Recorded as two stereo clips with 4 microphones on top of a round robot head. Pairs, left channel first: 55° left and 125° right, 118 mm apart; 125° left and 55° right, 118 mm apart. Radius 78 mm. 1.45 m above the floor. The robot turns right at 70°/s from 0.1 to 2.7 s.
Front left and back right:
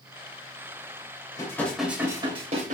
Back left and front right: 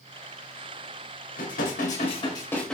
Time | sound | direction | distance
1.4 | dishes clattering | 115° left | 4 m